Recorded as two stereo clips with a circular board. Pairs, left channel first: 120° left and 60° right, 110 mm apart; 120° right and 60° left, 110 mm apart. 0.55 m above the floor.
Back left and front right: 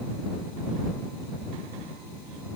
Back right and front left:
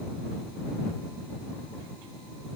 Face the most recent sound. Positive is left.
No sound to turn to.